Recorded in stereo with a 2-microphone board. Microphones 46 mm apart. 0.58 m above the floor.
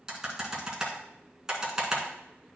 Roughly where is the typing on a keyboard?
Centre.